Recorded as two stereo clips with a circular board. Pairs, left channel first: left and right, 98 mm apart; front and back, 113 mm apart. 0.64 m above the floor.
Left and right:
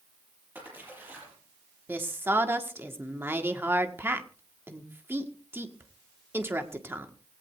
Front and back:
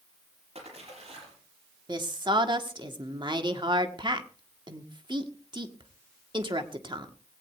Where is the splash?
160° right, 6 m.